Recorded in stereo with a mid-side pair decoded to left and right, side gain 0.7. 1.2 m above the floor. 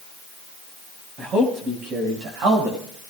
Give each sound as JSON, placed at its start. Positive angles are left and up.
{"t": 1.2, "sound": "a man speaking", "azimuth_deg": -35, "distance_m": 5.0}